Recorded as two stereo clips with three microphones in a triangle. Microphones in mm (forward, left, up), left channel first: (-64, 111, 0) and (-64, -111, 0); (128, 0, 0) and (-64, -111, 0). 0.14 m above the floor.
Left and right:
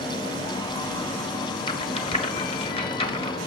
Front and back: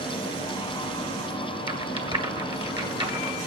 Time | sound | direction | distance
1.7 | a rattle | 150° left | 1.7 m